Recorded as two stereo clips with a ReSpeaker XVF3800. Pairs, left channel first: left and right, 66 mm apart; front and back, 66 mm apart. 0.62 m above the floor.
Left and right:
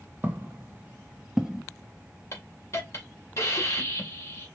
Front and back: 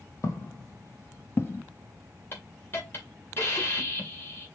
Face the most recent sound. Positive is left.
turn(degrees=50)